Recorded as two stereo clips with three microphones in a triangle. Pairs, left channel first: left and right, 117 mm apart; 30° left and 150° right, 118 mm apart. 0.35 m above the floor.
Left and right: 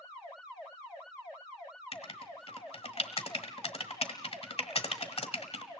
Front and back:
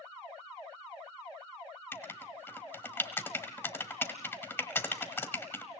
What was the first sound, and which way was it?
Writing, 95° left.